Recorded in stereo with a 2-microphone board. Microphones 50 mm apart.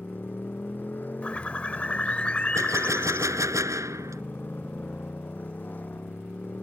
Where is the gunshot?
80° right.